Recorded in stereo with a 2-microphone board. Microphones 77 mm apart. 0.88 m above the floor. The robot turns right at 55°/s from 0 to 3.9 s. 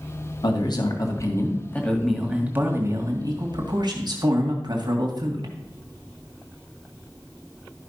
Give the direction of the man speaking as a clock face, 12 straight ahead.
9 o'clock.